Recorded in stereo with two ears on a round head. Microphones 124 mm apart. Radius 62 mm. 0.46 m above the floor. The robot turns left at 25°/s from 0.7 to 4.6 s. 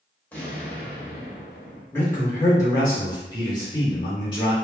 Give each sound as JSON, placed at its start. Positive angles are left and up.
{"t": 0.3, "sound": "an explosion", "side_deg": 15, "distance_m": 1.1}
{"t": 1.9, "sound": "a man speaking", "azimuth_deg": 150, "distance_m": 1.4}